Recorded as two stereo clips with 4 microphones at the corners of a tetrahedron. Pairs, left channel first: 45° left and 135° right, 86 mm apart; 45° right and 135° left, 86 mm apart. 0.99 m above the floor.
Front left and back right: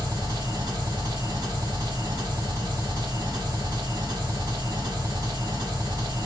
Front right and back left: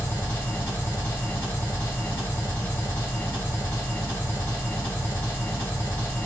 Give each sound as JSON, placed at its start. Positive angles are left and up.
{"t": 0.0, "sound": "an engine running", "azimuth_deg": -105, "distance_m": 1.6}